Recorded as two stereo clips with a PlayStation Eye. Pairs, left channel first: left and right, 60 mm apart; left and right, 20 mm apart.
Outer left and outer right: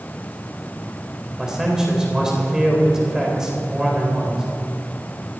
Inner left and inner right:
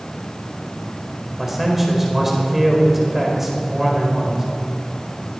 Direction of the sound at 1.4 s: 10° right (ahead or behind).